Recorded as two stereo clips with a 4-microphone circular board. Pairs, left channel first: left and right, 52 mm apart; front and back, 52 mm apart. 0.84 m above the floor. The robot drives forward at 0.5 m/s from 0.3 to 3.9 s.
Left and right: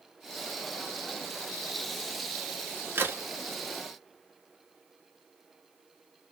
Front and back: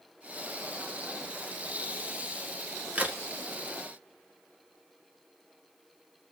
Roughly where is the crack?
Behind right.